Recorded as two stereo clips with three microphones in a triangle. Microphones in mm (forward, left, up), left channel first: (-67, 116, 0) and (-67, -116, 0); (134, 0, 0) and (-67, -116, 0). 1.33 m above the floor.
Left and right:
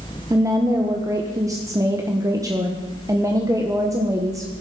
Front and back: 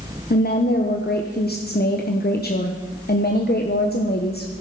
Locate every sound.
0.3 s a woman speaking: 15° right, 1.2 m